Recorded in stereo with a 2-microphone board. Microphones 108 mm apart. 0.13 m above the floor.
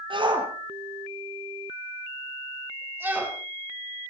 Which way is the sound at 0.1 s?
50° right (ahead or behind).